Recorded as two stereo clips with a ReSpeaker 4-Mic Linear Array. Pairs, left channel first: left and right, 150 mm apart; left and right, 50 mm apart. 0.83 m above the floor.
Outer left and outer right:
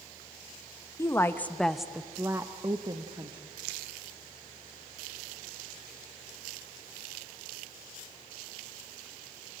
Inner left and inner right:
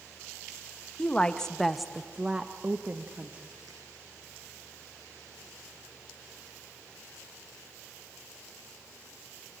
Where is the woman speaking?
20° left (ahead or behind), 0.8 m; by 3.5 s 30° right (ahead or behind), 1.1 m.